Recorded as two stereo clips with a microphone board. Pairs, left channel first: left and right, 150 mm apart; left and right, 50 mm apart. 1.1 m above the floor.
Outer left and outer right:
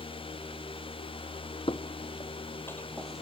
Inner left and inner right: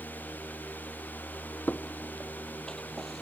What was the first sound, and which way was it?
Footsteps, 35° left (ahead or behind).